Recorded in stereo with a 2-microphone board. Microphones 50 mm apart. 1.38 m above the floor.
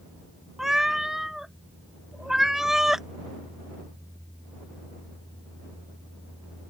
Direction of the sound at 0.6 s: 10° right (ahead or behind).